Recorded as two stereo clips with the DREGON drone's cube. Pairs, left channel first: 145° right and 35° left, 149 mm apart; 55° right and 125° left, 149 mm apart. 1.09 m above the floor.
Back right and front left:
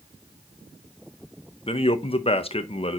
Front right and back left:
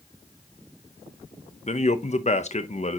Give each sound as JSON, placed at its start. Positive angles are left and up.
{"t": 1.7, "sound": "a man speaking", "azimuth_deg": -95, "distance_m": 0.7}